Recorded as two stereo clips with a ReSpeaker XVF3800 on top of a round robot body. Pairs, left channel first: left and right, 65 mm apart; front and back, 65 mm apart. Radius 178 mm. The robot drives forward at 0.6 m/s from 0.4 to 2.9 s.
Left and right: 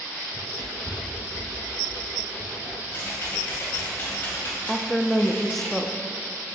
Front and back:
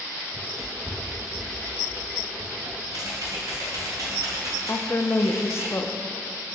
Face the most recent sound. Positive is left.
turn(degrees=5)